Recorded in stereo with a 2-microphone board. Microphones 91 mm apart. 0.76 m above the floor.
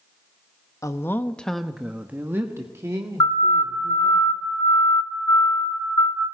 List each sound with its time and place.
0.8 s a woman speaking: 35° left (ahead or behind), 1.0 m; by 4.2 s 40° right (ahead or behind), 3 m
3.2 s a siren: 55° left (ahead or behind), 7 m; by 6.2 s 40° left (ahead or behind), 6.5 m